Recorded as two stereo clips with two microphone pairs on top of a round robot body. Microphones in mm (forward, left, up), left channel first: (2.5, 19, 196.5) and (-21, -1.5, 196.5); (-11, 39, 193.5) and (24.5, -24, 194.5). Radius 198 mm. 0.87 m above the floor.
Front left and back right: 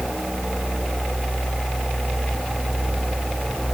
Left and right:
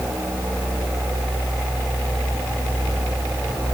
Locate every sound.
Only background noise.